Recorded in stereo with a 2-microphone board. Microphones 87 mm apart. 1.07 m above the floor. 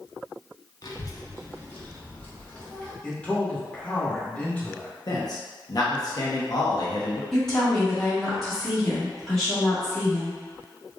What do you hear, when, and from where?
0.8 s a child speaking: 50° left (ahead or behind), 0.8 m; by 2.9 s 10° left (ahead or behind), 1.9 m
3.0 s a man speaking: 15° left (ahead or behind), 1.7 m
5.1 s a man speaking: 50° left (ahead or behind), 1.0 m
7.3 s a woman speaking: 5° left (ahead or behind), 1.9 m